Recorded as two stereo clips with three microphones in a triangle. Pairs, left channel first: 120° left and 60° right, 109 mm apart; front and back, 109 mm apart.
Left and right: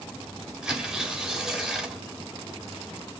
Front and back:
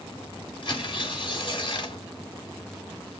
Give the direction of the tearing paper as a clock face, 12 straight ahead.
11 o'clock.